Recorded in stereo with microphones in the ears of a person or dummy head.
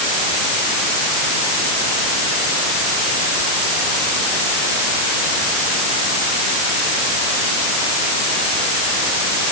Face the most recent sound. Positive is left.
No sound to turn to.